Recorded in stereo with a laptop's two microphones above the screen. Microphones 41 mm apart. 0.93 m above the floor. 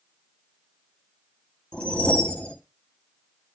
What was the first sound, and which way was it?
A whoosh, 25° left (ahead or behind).